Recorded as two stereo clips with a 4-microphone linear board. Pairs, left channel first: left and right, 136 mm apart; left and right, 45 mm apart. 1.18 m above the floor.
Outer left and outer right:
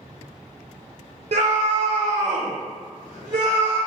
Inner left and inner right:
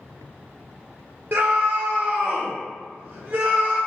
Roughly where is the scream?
Right.